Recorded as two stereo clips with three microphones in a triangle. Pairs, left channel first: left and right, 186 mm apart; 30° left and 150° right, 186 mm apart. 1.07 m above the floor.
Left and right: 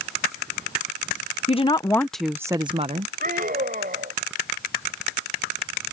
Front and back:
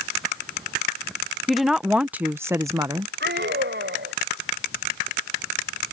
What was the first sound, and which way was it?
A woman speaking, 120° left.